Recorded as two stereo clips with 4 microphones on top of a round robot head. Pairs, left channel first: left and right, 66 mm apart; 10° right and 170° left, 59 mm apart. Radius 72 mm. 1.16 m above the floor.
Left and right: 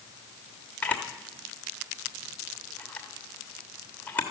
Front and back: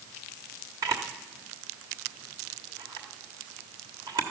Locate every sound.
0.8 s a camera shutter: 155° left, 1.2 m